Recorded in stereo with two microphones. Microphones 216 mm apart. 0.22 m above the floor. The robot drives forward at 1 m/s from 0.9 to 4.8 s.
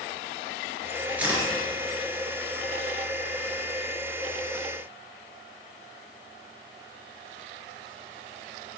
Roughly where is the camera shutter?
Centre.